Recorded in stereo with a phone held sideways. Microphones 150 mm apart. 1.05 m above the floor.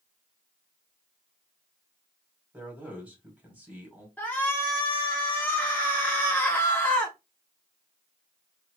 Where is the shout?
10° left (ahead or behind), 0.7 m.